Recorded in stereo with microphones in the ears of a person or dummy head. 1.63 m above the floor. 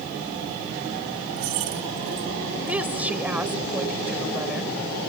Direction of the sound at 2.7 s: 5° right (ahead or behind).